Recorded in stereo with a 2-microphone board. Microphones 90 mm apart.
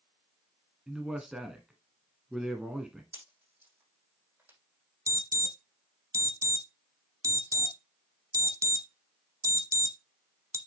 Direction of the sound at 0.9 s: 5° right (ahead or behind).